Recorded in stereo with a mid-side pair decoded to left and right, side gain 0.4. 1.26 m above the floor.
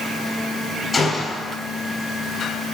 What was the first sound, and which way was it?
A gunshot, 30° left.